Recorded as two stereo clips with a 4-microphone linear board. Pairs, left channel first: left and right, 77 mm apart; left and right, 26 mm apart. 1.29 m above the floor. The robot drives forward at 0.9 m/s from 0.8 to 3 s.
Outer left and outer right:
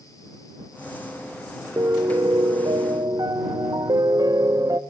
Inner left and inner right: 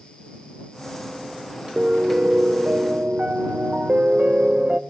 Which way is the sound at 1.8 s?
45° right (ahead or behind).